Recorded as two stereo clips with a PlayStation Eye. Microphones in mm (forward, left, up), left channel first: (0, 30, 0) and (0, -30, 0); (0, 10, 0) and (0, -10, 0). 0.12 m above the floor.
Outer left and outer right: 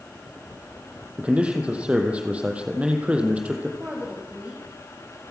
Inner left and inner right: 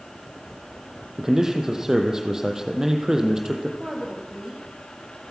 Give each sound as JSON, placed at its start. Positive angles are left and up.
{"t": 1.2, "sound": "a man speaking", "side_deg": -20, "distance_m": 4.0}
{"t": 3.8, "sound": "a woman speaking", "side_deg": -20, "distance_m": 8.0}